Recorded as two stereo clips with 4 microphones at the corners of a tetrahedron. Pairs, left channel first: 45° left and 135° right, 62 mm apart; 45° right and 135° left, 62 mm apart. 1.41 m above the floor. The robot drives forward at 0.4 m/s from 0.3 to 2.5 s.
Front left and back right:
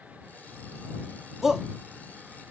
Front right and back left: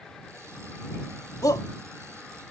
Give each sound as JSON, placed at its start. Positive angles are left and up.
{"t": 1.4, "sound": "a shout", "azimuth_deg": -50}